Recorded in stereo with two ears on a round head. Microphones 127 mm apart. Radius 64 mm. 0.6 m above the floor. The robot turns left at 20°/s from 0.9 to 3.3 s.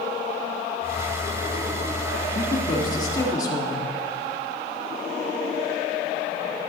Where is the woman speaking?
30° left (ahead or behind), 1.4 m; by 3.9 s 25° left (ahead or behind), 1.4 m.